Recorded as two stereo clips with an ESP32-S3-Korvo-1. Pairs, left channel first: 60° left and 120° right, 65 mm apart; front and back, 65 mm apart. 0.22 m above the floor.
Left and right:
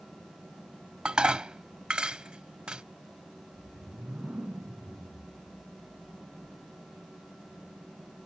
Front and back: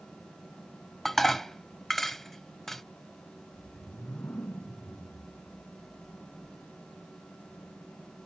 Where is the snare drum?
No snare drum in this recording.